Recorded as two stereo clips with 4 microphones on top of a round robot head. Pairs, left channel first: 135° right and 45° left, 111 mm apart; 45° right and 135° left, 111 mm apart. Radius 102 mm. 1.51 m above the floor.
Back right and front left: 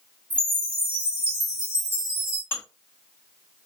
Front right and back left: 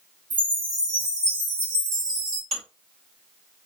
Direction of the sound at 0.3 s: 120° left.